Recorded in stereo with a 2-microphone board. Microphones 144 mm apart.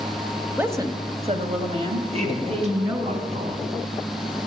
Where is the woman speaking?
10° right (ahead or behind), 1.2 m; by 3.1 s 40° right (ahead or behind), 3.5 m.